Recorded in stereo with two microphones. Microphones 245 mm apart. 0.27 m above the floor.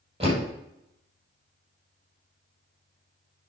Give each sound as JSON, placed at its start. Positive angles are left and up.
{"t": 0.2, "sound": "a door slam", "side_deg": -20, "distance_m": 5.0}